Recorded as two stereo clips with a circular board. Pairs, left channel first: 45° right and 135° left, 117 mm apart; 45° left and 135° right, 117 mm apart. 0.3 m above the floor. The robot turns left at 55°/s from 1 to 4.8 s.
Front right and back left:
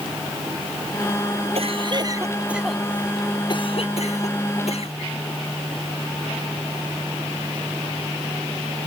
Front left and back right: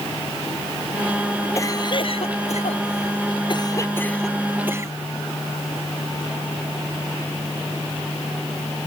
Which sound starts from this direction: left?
A cough, at 1.6 s.